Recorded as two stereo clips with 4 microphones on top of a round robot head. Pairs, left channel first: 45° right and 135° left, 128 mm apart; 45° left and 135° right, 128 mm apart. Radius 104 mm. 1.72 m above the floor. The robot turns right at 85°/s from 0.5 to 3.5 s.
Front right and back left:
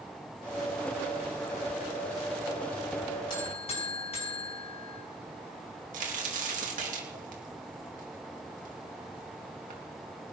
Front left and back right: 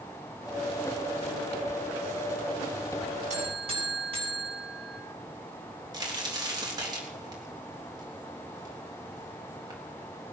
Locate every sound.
3.3 s a buzzer: 105° right, 7 m; by 5.0 s 90° right, 7 m
5.9 s a crack: 165° left, 3 m